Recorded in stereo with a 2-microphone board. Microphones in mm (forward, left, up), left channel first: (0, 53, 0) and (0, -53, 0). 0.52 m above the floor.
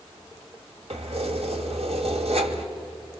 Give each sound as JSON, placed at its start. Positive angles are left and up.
{"t": 0.9, "sound": "keys jangling", "side_deg": -75, "distance_m": 1.6}